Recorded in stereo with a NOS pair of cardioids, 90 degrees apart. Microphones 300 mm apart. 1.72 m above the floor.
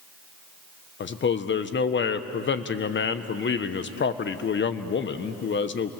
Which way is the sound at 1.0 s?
40° left.